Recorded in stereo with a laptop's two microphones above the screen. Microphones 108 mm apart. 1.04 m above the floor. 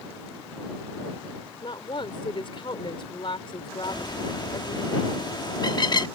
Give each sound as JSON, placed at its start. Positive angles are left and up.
{"t": 1.6, "sound": "a woman speaking", "side_deg": 50}
{"t": 3.8, "sound": "a bird", "side_deg": 40}